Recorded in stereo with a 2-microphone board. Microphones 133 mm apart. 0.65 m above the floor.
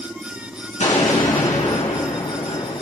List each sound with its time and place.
0.8 s an explosion: 65° left (ahead or behind), 3 m